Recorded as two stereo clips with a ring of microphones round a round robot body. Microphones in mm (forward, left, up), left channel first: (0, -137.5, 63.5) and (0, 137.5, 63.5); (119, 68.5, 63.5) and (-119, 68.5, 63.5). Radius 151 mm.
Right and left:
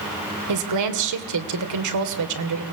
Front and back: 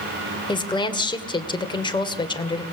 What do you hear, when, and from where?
0.5 s a woman speaking: 70° left, 2.5 m